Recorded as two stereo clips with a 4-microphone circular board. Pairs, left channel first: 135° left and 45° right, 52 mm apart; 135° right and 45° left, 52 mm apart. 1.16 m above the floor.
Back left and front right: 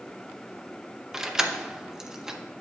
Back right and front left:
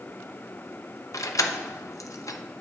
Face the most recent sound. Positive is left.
turn(degrees=-125)